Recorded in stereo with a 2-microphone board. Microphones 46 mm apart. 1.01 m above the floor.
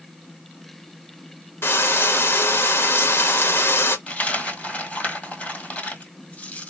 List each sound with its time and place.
1.6 s frying: 65° left (ahead or behind), 1.0 m
4.1 s a dropped coin: 35° left (ahead or behind), 1.6 m